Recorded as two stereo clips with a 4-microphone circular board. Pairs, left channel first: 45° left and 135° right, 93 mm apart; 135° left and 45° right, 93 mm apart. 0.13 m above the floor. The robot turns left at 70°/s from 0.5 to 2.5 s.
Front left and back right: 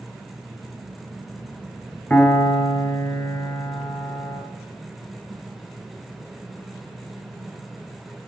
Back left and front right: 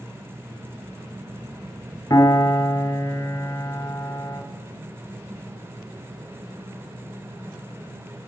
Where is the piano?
110° left, 1.0 m; by 4.4 s 80° left, 1.0 m.